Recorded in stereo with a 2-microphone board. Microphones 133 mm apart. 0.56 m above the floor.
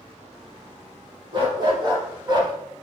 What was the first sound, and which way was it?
A dog barking, 35° right (ahead or behind).